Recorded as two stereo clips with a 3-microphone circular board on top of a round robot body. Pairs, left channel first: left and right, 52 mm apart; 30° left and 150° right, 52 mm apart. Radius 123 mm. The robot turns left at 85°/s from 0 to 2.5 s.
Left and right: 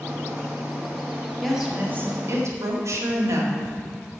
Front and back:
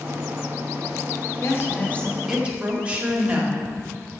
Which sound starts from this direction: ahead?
A woman speaking, at 1.4 s.